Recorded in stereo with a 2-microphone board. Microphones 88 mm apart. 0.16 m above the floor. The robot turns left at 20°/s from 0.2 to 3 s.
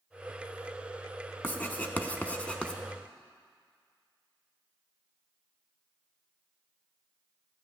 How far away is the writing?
About 0.7 m.